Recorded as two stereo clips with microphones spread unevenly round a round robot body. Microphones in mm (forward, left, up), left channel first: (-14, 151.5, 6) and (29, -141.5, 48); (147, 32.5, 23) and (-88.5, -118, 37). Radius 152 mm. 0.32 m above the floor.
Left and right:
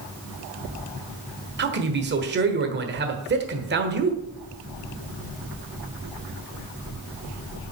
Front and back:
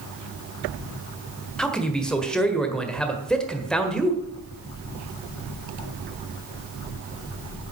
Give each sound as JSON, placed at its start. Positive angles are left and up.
{"t": 1.6, "sound": "a man speaking", "azimuth_deg": -50, "distance_m": 1.4}